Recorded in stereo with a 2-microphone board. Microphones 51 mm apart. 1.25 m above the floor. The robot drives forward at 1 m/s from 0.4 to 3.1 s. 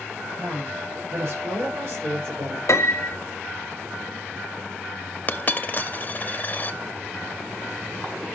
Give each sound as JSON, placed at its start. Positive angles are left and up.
{"t": 0.4, "sound": "a woman speaking", "side_deg": -55, "distance_m": 7.0}
{"t": 2.7, "sound": "a piano", "side_deg": 70, "distance_m": 1.2}
{"t": 5.3, "sound": "a dropped coin", "side_deg": 40, "distance_m": 0.8}